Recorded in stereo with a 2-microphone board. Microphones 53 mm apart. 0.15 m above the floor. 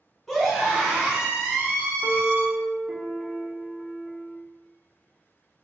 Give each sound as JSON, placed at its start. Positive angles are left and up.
{"t": 0.3, "sound": "a scream", "side_deg": 5, "distance_m": 1.7}
{"t": 2.0, "sound": "a piano", "side_deg": -10, "distance_m": 0.6}